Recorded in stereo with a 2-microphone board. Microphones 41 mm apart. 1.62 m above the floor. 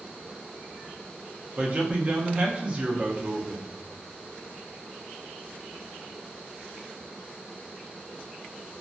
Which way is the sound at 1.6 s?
30° right (ahead or behind).